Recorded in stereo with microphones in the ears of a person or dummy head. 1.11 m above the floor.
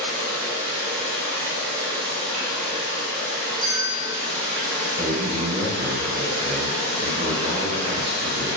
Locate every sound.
0.0 s running water: 50° right (ahead or behind), 1.0 m
3.6 s a bell: 20° right (ahead or behind), 1.1 m
5.0 s a man speaking: 35° right (ahead or behind), 1.8 m